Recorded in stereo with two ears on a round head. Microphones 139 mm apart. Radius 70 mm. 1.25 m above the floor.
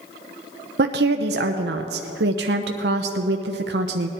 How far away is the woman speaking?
About 0.7 m.